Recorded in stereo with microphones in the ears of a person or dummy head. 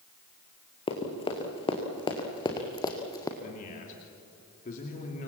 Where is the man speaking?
40° left (ahead or behind), 3 m.